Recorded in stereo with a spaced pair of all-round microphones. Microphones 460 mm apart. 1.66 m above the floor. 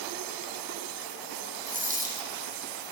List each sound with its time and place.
1.7 s a dropped coin: 15° right (ahead or behind), 4 m